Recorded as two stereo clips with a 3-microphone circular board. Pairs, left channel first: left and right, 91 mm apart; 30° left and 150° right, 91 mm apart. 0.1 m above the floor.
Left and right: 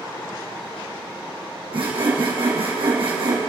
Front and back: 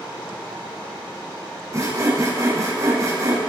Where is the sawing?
95° right, 3 m.